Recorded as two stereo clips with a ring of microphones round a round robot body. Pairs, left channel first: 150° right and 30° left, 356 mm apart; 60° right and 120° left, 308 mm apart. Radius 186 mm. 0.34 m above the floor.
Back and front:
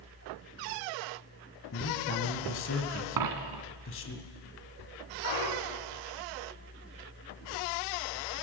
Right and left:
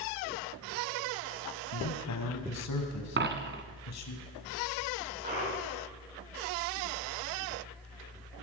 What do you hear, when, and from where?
1.7 s a man speaking: 95° right, 3 m
3.2 s a dropped coin: 65° left, 1.8 m
5.2 s a clunk: 170° right, 5 m